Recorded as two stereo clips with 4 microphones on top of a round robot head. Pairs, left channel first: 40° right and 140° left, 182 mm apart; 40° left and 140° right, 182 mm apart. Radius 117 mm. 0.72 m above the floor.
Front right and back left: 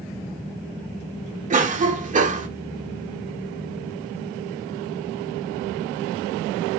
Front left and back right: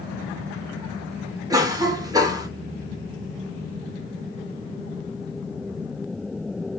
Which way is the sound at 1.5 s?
160° left.